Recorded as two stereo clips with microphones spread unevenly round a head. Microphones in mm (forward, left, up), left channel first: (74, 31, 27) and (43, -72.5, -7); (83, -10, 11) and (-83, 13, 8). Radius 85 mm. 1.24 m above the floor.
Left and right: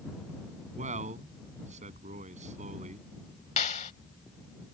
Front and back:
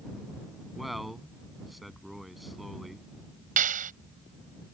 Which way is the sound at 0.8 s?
95° right.